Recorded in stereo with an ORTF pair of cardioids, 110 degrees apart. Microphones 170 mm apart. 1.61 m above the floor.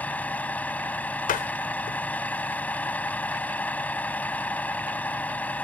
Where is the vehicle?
10° left.